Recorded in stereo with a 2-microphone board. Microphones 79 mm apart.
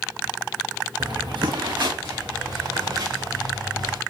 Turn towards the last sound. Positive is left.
turn(degrees=-70)  # may be behind; listen again after turning